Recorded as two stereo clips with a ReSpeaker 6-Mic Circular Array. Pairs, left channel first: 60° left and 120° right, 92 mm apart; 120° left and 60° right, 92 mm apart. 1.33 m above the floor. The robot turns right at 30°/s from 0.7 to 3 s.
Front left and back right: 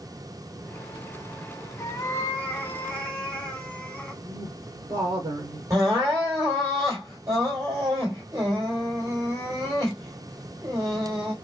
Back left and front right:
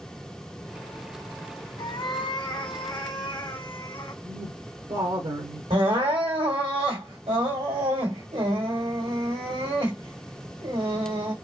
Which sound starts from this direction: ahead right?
Crying, at 5.7 s.